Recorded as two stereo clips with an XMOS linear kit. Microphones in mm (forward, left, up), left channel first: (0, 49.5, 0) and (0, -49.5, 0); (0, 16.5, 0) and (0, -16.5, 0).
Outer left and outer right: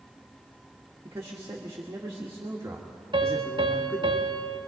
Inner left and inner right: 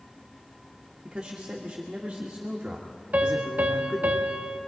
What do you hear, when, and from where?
1.1 s a man speaking: 30° right (ahead or behind), 2.0 m
3.1 s a piano: 50° right (ahead or behind), 1.5 m